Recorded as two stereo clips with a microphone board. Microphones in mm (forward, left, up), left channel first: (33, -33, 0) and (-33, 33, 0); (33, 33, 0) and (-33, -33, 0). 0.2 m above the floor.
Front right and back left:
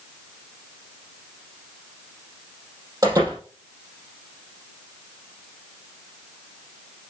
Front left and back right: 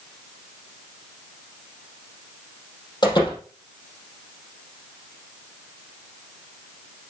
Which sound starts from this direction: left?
A door slam, at 3.0 s.